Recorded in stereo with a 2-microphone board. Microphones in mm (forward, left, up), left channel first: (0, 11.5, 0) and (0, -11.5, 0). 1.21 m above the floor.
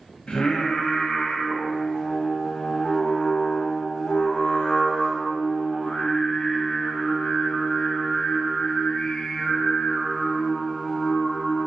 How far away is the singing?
About 0.6 m.